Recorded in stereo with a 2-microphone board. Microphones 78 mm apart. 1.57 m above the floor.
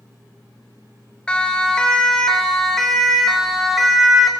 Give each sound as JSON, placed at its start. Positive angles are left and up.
{"t": 1.3, "sound": "a siren", "side_deg": 15, "distance_m": 5.0}